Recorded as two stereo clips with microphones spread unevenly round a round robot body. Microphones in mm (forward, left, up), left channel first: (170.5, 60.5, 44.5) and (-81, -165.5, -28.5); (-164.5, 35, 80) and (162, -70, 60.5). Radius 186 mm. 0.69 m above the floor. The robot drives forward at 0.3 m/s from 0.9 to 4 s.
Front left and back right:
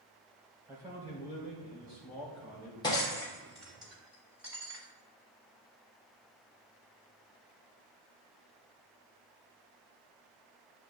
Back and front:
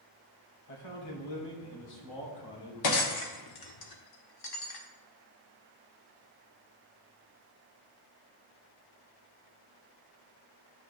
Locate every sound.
0.7 s a man speaking: 145° left, 2.5 m; by 2.7 s 150° left, 3 m
2.8 s breaking glass: 125° left, 1.1 m; by 4.8 s 135° left, 1.3 m